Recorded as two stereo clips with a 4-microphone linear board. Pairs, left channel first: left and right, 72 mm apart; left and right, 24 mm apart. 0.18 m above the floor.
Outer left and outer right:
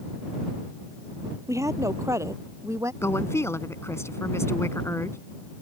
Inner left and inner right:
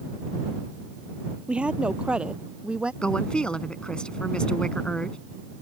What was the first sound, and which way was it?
A woman speaking, 45° right (ahead or behind).